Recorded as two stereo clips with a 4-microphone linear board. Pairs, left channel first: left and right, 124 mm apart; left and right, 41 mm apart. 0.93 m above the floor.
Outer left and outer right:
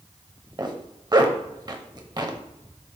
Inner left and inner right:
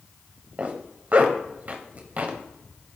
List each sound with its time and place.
0.6 s a zipper: 35° right (ahead or behind), 0.8 m